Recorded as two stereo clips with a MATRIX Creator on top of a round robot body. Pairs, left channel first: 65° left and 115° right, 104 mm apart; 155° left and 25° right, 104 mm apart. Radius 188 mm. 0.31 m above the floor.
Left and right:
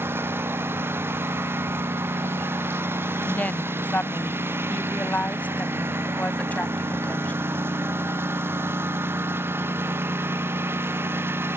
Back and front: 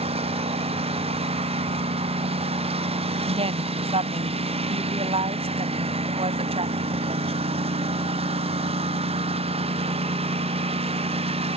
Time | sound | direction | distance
0.0 | a lawn mower | 45° right | ?
3.2 | a woman speaking | 10° right | ?